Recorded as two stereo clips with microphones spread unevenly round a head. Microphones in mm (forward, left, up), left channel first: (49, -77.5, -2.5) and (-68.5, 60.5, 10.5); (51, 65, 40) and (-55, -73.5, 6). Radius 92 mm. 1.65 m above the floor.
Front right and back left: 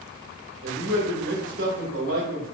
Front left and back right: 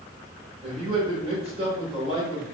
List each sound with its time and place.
0.6 s a man speaking: 170° left, 1.9 m